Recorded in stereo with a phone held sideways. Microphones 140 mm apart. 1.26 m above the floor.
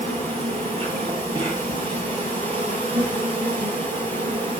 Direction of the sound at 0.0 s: 45° right (ahead or behind).